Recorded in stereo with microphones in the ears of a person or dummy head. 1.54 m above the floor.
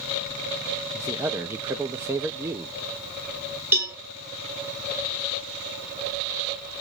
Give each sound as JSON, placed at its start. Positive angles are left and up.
{"t": 0.9, "sound": "a man speaking", "side_deg": -15, "distance_m": 0.6}
{"t": 3.7, "sound": "a cowbell", "side_deg": -15, "distance_m": 1.0}